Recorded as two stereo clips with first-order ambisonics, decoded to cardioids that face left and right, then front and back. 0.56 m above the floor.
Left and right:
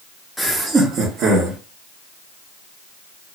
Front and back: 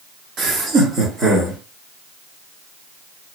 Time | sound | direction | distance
0.4 | laughter | 175° right | 0.7 m